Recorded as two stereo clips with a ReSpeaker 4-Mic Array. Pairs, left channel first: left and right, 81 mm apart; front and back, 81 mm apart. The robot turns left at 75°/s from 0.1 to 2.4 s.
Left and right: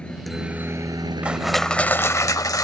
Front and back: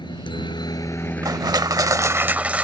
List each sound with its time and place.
0.0 s a helicopter: 15° left; by 2.6 s 160° right
1.2 s crushing: 160° right; by 2.6 s 115° left